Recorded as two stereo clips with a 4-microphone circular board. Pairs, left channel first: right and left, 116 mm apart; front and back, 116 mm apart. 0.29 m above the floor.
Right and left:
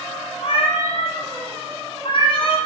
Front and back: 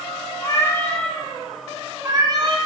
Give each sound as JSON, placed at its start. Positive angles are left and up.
{"t": 0.4, "sound": "a cat meowing", "azimuth_deg": -55, "distance_m": 1.0}